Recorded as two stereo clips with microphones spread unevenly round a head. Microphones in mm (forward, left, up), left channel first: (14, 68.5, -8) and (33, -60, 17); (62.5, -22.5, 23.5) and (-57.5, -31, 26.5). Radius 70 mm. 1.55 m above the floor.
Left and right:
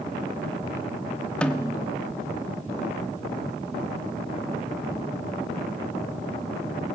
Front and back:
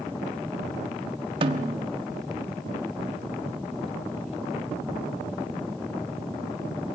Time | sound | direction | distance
1.4 | a snare drum | 170° right | 1.2 m